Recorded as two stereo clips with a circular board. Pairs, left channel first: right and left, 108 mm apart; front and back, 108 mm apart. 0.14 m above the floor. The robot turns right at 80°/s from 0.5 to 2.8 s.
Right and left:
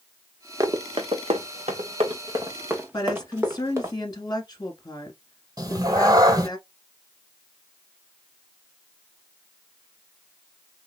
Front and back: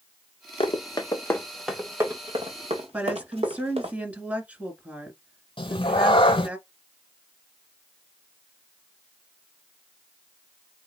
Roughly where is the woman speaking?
Right.